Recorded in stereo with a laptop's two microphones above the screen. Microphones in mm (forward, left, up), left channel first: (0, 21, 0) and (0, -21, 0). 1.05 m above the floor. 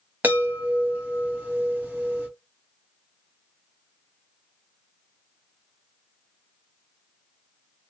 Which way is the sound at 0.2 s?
45° right (ahead or behind).